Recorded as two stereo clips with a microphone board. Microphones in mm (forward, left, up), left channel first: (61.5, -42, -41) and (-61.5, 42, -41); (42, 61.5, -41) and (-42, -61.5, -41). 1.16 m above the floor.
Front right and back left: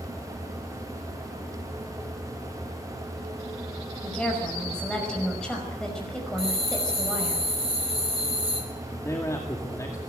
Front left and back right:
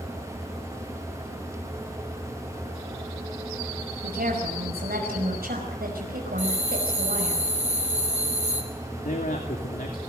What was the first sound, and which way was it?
A woman speaking, 120° right.